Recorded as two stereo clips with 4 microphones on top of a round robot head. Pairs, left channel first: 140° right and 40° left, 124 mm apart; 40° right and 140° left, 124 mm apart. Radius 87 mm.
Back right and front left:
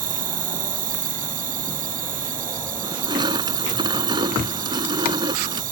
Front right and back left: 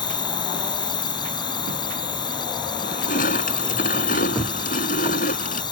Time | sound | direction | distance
0.0 | an insect | 20° left | ?
2.8 | crushing | 20° right | ?